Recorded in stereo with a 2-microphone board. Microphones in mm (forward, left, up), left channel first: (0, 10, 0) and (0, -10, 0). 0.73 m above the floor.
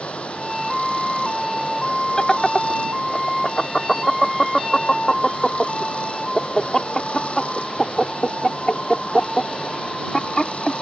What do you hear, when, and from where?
0.0 s running water: 75° left (ahead or behind)
2.2 s laughter: 25° left (ahead or behind)